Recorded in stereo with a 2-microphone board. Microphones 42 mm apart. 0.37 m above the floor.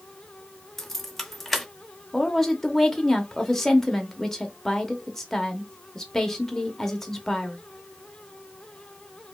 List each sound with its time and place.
0.8 s keys jangling: 5° left (ahead or behind), 0.6 m
2.1 s a woman speaking: 10° left (ahead or behind), 0.8 m